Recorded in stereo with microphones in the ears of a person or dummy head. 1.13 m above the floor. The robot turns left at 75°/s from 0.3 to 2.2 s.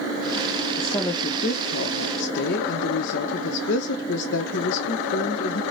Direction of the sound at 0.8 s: 175° left.